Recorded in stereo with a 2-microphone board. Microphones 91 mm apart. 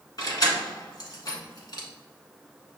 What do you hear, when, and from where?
0.2 s keys jangling: 45° left (ahead or behind), 1.3 m